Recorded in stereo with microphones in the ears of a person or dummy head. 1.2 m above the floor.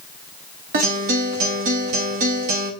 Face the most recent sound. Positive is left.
turn(degrees=-45)  # may be behind; listen again after turning